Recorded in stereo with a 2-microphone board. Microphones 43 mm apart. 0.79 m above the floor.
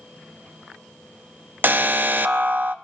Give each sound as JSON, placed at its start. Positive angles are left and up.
{"t": 1.6, "sound": "an alarm", "side_deg": -45, "distance_m": 0.7}